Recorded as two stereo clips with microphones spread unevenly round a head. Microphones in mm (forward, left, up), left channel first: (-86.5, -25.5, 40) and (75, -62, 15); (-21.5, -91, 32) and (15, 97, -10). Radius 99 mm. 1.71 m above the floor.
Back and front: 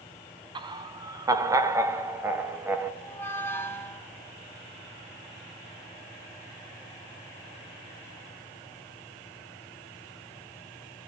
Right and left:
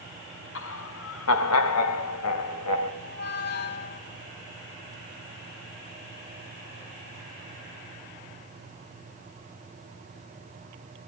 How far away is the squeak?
About 3 m.